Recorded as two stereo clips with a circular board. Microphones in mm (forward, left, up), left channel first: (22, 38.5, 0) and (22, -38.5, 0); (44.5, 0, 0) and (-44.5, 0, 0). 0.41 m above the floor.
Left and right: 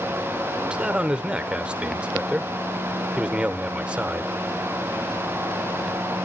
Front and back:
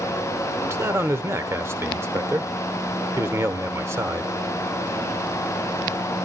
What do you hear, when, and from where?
0.6 s a man speaking: 155° right, 1.0 m